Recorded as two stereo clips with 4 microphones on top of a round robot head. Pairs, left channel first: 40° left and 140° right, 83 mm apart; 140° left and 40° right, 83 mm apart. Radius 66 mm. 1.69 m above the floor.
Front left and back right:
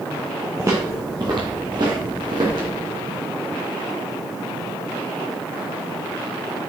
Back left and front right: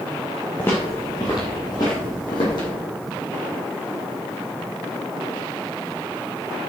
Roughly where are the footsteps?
Behind.